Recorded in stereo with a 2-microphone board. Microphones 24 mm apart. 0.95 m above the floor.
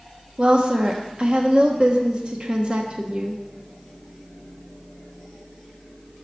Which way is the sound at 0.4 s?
40° right (ahead or behind).